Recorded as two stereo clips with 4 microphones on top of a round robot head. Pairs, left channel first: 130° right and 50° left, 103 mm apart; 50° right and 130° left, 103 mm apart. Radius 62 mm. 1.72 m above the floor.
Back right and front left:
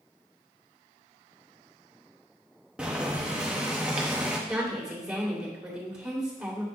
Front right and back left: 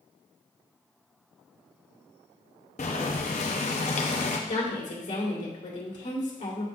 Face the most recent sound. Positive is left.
turn(degrees=-30)